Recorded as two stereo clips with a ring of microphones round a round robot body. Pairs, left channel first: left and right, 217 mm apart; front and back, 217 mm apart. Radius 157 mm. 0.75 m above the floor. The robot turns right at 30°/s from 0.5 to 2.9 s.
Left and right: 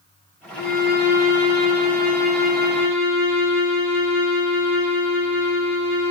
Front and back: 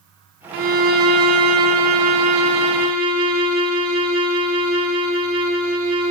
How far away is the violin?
About 0.8 m.